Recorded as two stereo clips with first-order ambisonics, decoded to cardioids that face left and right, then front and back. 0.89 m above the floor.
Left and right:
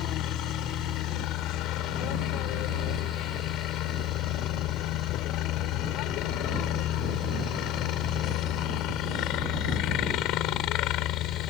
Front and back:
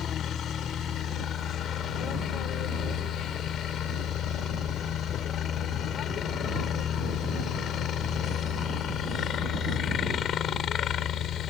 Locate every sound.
0.0 s a helicopter: 55° left